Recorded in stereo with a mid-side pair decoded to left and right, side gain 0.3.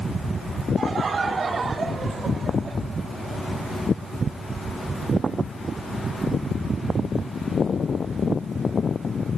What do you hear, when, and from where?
0.8 s laughter: 65° right, 3.5 m; by 2.8 s 60° right, 2.5 m